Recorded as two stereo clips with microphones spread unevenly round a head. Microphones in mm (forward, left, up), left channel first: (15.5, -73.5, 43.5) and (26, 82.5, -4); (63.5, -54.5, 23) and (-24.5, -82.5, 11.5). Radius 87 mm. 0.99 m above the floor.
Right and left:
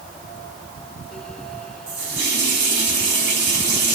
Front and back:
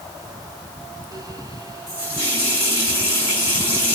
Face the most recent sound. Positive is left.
turn(degrees=85)